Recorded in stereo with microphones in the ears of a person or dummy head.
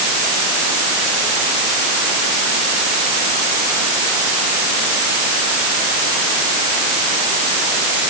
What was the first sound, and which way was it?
Only background noise.